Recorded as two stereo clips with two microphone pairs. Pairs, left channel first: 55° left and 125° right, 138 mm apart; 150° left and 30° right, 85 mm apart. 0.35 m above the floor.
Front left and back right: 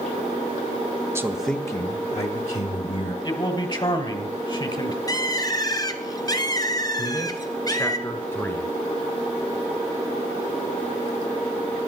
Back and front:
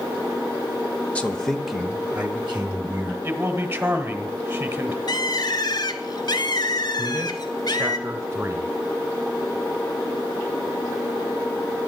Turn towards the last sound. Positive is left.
turn(degrees=0)